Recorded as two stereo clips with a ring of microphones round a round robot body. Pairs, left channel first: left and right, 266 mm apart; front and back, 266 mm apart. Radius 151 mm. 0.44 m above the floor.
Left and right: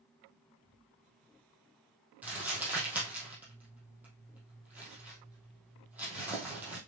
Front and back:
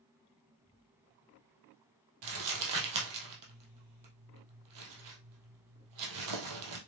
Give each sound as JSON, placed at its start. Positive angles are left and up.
{"t": 2.2, "sound": "crumpling", "azimuth_deg": -175, "distance_m": 3.0}